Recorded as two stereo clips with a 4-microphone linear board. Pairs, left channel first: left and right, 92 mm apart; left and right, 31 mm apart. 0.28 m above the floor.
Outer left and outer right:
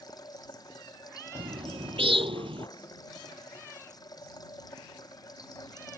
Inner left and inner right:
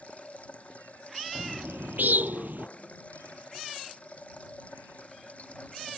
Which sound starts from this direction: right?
A bird, at 1.4 s.